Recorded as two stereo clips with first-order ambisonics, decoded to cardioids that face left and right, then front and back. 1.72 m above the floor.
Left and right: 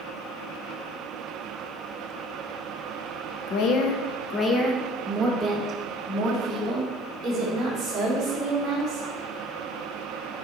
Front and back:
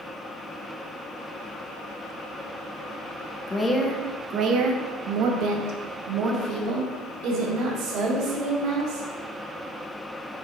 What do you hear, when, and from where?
3.5 s a woman speaking: 75° left, 0.8 m; by 9.1 s 155° right, 3.5 m